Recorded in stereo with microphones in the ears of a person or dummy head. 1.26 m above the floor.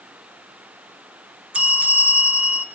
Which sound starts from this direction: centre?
A bell, at 1.5 s.